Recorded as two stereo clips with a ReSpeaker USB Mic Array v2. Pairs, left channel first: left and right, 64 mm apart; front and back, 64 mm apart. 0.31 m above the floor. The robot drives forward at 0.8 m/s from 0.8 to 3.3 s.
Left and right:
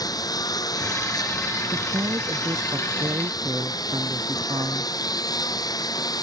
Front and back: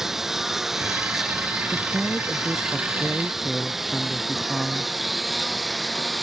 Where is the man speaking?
85° right; by 4.9 s 90° right.